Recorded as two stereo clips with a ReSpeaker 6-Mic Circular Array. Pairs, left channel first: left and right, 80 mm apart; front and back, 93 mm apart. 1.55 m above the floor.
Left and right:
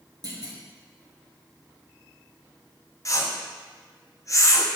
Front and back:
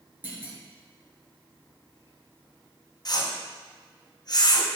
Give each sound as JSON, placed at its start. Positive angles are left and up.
{"t": 0.2, "sound": "a clunk", "azimuth_deg": -115, "distance_m": 1.9}
{"t": 3.0, "sound": "a whoosh", "azimuth_deg": 40, "distance_m": 0.8}